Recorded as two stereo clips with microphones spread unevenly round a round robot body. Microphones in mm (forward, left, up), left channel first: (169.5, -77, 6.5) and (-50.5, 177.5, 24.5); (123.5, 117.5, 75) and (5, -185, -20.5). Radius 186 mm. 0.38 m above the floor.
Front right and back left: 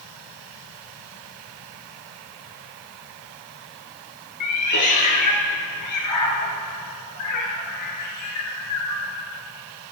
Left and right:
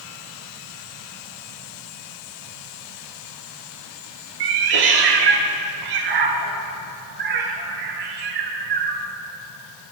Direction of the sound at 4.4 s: 95° right.